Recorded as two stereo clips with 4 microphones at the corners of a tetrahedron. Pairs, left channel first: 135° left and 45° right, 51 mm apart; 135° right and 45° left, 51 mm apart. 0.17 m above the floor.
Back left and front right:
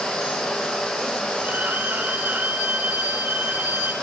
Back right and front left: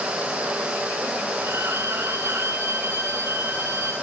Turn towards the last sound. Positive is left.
turn(degrees=10)